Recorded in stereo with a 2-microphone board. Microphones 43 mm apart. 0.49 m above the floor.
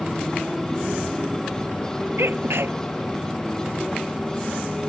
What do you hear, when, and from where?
0.0 s a motorcycle: 10° left (ahead or behind); by 4.9 s 15° left (ahead or behind)
2.2 s a sneeze: 70° right (ahead or behind)